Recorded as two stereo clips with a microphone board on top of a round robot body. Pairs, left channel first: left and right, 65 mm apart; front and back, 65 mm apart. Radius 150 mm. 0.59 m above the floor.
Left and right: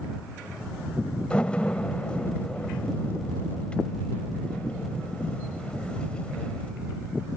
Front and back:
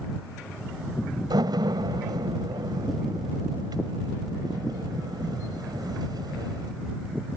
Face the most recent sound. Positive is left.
turn(degrees=165)